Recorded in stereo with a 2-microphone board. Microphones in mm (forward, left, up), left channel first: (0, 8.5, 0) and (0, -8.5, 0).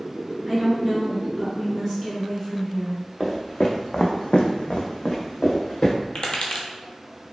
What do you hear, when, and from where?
0.5 s a woman speaking: centre (ahead or behind), 1.3 m
3.2 s footsteps: 30° left (ahead or behind), 0.9 m; by 5.9 s 25° left (ahead or behind), 1.1 m
6.2 s tapping: 65° left (ahead or behind), 0.7 m